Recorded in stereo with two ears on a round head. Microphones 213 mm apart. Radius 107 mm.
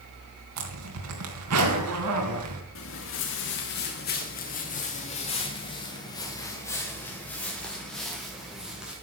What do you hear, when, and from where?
0.6 s a zipper: 70° right (ahead or behind), 3.5 m
2.8 s footsteps: 60° left (ahead or behind), 3 m; by 8.9 s 5° right (ahead or behind), 5 m